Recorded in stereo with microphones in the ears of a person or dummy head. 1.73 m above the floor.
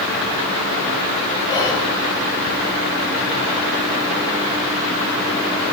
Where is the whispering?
15° left (ahead or behind), 8 m.